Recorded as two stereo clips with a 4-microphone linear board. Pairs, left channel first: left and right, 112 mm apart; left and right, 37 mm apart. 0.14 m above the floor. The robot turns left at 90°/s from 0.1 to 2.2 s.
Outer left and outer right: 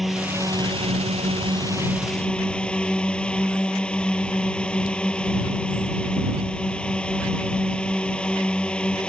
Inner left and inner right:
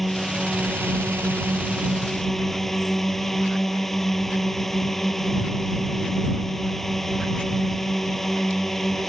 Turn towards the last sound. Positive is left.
turn(degrees=170)